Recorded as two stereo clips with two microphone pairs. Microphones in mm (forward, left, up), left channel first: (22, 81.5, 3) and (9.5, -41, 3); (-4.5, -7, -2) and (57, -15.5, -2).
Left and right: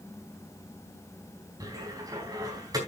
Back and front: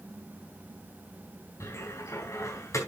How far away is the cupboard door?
About 4 m.